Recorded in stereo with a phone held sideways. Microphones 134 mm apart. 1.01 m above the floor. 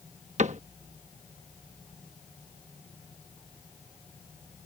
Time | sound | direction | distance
0.4 | a cupboard door | 60° right (ahead or behind) | ?